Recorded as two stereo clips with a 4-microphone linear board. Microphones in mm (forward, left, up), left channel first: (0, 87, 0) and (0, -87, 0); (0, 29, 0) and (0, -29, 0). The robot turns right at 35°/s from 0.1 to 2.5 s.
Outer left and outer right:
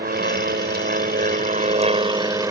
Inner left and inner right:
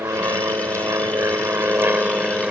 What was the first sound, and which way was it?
An aircraft, 105° right.